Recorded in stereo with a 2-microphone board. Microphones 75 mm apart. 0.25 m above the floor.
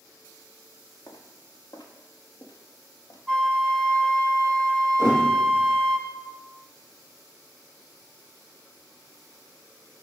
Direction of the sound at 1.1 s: 70° left (ahead or behind).